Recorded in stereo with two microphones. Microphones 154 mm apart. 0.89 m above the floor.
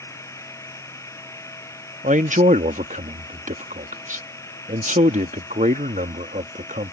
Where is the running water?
20° left (ahead or behind).